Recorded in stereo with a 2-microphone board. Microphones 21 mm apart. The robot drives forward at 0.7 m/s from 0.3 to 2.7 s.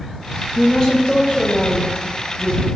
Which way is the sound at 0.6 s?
30° left (ahead or behind).